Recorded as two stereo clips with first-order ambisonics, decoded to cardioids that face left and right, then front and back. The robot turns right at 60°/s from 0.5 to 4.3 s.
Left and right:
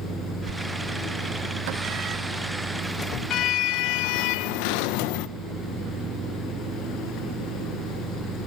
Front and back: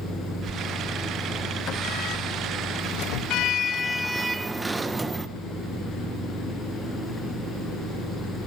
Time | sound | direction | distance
0.5 | a sliding door | 125° right | 0.8 m